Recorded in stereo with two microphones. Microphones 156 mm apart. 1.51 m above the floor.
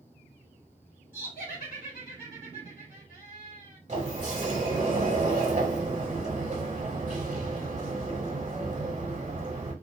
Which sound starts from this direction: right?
A sliding door, at 3.9 s.